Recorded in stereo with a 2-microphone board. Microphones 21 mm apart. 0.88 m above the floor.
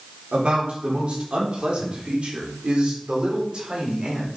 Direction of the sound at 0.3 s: 70° right (ahead or behind).